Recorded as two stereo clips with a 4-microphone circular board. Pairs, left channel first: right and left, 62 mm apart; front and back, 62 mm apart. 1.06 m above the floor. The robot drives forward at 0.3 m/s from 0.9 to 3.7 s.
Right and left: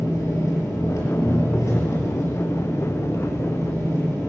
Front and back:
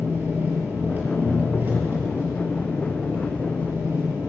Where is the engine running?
120° right, 6 m; by 4.3 s 130° right, 6.5 m.